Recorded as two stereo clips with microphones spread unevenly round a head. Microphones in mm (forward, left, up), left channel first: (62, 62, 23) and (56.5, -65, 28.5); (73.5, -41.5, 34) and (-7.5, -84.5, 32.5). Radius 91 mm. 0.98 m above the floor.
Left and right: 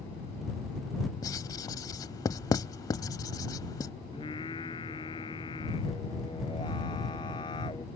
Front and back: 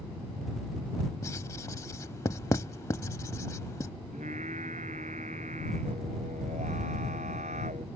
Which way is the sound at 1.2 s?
50° left.